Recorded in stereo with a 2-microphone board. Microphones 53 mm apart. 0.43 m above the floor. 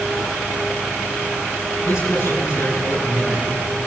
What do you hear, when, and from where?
1.8 s a man speaking: 80° left, 7.5 m